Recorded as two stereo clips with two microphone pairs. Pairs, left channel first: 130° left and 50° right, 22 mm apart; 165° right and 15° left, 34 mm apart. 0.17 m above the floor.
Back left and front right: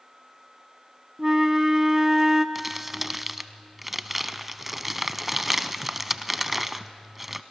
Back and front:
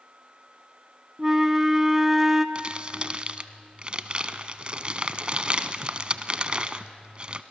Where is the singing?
I don't hear singing.